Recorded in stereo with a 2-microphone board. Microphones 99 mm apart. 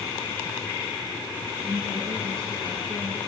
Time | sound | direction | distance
1.6 | a woman speaking | 30° right (ahead or behind) | 5 m